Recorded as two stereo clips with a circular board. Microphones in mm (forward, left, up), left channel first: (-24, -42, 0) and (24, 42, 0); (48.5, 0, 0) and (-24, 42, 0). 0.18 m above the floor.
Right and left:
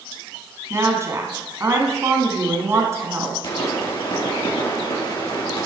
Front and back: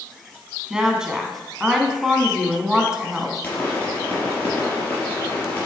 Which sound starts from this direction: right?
A pop, at 3.4 s.